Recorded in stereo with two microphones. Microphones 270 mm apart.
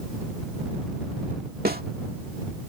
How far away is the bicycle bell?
No bicycle bell in this recording.